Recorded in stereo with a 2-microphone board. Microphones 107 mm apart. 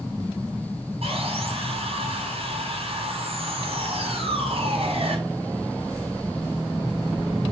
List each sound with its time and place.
1.0 s sawing: 65° right (ahead or behind), 5.5 m